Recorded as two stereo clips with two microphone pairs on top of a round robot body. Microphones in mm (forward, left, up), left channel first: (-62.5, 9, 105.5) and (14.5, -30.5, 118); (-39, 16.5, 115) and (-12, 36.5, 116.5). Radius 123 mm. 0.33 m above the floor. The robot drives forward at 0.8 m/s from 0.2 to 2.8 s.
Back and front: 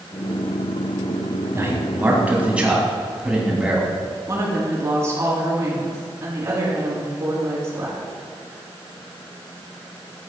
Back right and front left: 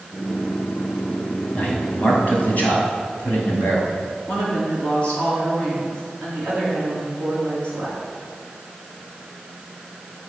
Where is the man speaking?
85° right, 2.5 m; by 3.9 s 110° right, 3 m.